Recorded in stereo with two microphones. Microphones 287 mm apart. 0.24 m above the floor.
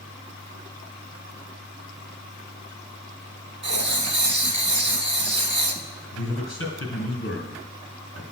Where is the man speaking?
45° left (ahead or behind), 2.5 m.